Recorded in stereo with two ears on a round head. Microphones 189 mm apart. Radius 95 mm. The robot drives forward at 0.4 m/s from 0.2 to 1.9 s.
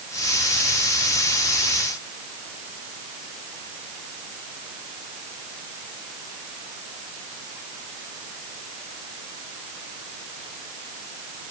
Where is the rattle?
No rattle in this recording.